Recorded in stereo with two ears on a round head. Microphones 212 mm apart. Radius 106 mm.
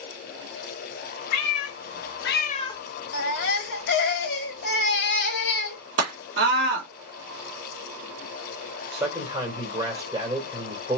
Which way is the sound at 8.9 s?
10° right (ahead or behind).